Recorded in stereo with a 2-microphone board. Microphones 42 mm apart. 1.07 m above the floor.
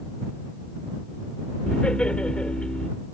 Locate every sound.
1.7 s laughter: 25° left (ahead or behind)